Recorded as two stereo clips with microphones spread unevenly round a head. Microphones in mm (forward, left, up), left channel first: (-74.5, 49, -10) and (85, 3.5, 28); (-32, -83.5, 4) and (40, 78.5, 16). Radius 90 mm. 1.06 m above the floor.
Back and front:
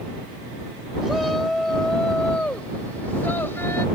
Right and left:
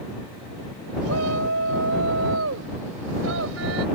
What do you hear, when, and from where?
1.0 s a shout: 70° left; by 3.9 s 85° left